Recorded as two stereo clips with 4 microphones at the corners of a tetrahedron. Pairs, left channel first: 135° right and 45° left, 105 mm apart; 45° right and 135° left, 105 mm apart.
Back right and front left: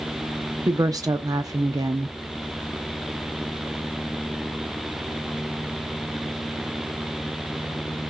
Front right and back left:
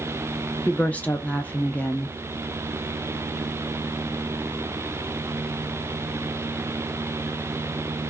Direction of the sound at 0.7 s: 20° left.